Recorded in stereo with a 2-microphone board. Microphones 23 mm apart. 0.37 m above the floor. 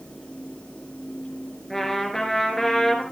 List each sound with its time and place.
1.7 s a trumpet: 5° left (ahead or behind), 3.5 m